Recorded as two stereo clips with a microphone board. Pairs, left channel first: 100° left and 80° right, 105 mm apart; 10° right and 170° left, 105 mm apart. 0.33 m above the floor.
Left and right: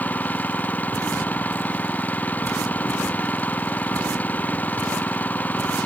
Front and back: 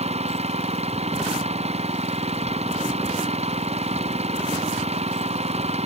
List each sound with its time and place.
0.0 s an engine running: 175° left